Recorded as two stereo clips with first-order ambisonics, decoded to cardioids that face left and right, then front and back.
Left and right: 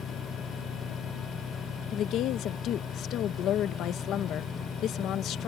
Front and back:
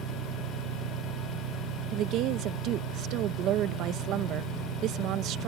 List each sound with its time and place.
0.0 s an engine running: 160° left
1.9 s a woman speaking: 135° left